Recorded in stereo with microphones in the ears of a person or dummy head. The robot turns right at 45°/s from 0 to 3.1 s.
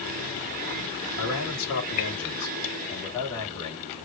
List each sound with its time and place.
1.2 s a man speaking: 80° left, 3 m; by 4.0 s 165° left, 3 m